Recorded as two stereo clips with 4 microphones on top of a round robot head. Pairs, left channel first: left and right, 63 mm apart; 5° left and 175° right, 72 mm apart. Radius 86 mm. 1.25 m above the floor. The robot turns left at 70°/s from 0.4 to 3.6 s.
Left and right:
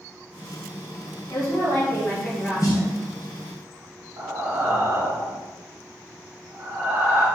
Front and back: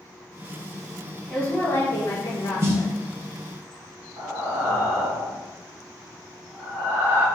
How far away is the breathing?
About 1.9 m.